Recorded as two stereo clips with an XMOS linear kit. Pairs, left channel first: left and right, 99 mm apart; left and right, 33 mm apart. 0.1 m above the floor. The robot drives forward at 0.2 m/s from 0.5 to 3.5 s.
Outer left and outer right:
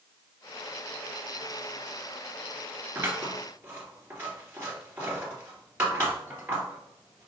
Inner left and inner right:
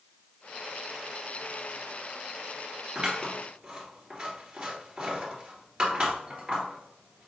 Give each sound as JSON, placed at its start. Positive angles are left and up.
{"t": 3.0, "sound": "scissors", "side_deg": -25, "distance_m": 1.9}